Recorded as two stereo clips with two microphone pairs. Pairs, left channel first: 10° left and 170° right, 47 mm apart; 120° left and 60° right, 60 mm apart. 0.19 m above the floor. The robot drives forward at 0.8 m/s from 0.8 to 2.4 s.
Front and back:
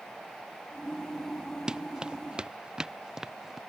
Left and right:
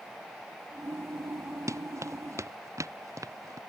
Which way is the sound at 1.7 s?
95° right.